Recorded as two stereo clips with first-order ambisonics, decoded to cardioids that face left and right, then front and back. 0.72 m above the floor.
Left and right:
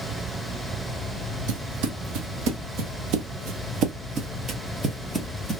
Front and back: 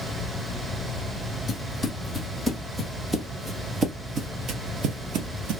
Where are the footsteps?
80° right, 1.9 m; by 5.6 s straight behind, 1.2 m.